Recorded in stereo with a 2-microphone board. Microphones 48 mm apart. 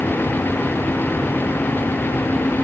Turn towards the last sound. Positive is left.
No sound to turn to.